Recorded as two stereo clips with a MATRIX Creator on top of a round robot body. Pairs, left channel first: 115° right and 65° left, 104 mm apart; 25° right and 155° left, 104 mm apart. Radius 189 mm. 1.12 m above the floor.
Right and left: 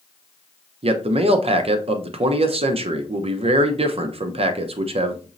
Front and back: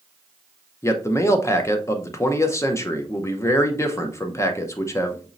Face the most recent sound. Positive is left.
turn(degrees=40)